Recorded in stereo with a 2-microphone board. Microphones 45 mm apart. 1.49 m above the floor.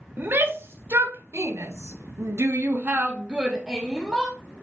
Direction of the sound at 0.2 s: 50° right (ahead or behind).